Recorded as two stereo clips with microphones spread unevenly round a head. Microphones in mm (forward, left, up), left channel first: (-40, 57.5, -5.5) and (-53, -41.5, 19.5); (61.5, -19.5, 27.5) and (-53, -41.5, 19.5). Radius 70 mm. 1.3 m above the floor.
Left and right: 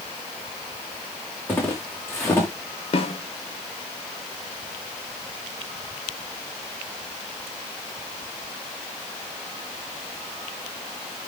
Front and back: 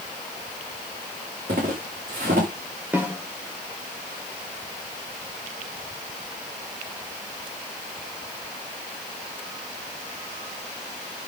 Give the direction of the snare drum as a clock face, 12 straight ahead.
8 o'clock.